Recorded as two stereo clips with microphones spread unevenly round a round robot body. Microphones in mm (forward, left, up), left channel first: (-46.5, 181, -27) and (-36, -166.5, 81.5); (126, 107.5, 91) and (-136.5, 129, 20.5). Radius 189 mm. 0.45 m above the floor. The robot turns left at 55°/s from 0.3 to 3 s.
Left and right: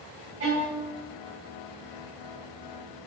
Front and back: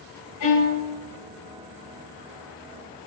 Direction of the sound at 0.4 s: 25° right.